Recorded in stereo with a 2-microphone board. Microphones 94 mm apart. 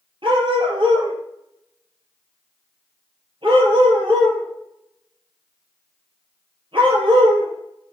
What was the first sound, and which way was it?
A dog barking, 60° right (ahead or behind).